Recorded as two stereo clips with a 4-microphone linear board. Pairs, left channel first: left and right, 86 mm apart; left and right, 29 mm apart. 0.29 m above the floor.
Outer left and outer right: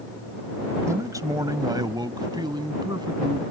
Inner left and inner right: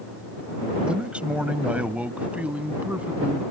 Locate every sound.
0.8 s a man speaking: 40° right (ahead or behind); by 3.4 s 60° right (ahead or behind)